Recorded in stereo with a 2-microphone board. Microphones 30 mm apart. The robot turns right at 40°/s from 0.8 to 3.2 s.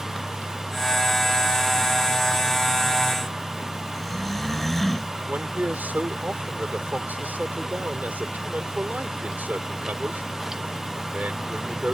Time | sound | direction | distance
3.9 | snoring | 10° left (ahead or behind) | ?
5.3 | a man speaking | 70° right (ahead or behind) | ?